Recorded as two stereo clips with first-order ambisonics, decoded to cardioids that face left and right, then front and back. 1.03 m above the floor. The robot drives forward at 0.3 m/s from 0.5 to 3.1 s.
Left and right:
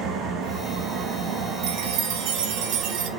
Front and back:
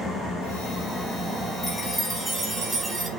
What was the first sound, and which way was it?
An engine running, 70° right.